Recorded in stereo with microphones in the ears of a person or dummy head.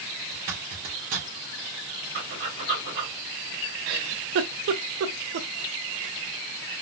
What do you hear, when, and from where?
0.3 s a zipper: 45° right (ahead or behind), 1.2 m
2.1 s breathing: 60° right (ahead or behind), 1.9 m
3.9 s a giggle: 65° right (ahead or behind), 0.5 m